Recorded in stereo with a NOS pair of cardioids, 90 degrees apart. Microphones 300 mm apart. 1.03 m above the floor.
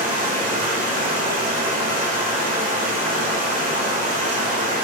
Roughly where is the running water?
Ahead right.